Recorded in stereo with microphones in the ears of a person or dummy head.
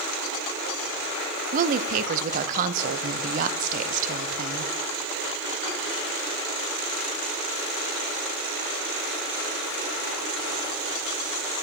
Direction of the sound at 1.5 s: 40° right (ahead or behind).